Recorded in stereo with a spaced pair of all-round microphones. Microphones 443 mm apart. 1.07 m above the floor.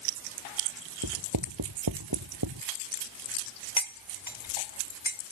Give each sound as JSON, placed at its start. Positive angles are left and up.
{"t": 1.0, "sound": "writing", "side_deg": -55}
{"t": 3.8, "sound": "cutlery clinking", "side_deg": 80}